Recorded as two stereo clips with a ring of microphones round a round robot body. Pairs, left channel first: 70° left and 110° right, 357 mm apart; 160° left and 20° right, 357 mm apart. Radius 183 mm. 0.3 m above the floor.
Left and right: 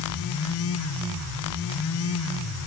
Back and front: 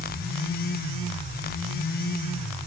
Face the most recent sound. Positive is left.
No sound to turn to.